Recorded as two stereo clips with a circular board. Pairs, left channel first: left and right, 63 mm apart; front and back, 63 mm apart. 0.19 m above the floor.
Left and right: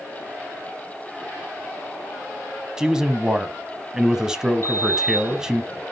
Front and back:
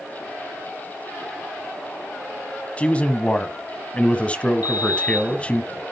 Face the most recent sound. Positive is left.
turn(degrees=130)